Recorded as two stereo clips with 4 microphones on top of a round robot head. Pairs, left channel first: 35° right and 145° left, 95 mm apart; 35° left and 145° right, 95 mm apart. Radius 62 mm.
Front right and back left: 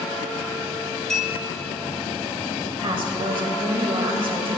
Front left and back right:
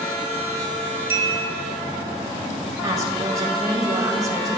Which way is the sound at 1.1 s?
110° right.